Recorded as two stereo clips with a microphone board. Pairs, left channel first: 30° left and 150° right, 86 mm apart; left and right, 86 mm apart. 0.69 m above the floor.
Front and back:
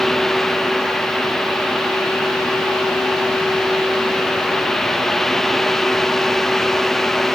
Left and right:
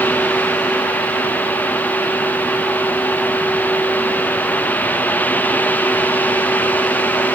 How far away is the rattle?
No rattle in this recording.